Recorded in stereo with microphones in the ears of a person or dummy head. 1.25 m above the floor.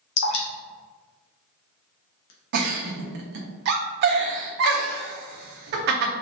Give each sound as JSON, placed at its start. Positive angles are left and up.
{"t": 0.2, "sound": "dripping", "side_deg": 75, "distance_m": 0.7}
{"t": 2.5, "sound": "a giggle", "side_deg": -50, "distance_m": 0.6}